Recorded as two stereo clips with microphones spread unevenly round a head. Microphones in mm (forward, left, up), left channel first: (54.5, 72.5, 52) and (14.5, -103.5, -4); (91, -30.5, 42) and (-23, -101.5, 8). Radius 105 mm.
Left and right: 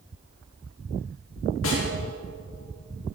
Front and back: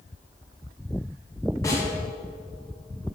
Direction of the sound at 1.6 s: 110° left.